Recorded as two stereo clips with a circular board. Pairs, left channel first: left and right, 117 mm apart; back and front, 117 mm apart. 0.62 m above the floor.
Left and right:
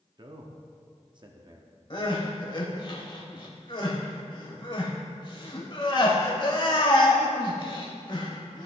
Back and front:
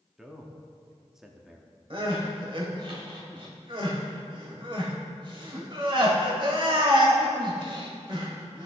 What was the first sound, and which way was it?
A man speaking, 85° right.